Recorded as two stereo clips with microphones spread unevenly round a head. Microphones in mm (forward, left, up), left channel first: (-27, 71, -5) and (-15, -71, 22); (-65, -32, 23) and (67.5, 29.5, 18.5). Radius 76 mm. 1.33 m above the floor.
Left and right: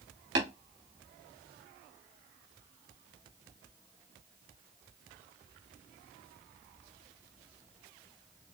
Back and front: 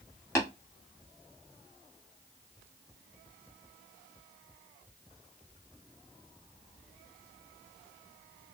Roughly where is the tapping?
Right.